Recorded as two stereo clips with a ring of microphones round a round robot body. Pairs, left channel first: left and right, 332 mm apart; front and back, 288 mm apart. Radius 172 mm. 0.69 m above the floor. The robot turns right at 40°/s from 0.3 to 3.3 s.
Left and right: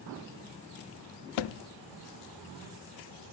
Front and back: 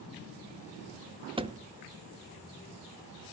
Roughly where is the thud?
Left.